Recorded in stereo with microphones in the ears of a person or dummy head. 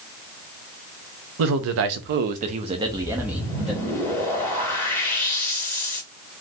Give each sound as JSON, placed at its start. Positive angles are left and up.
{"t": 1.4, "sound": "a man speaking", "side_deg": -60, "distance_m": 0.8}
{"t": 2.8, "sound": "a whoosh", "side_deg": 15, "distance_m": 1.7}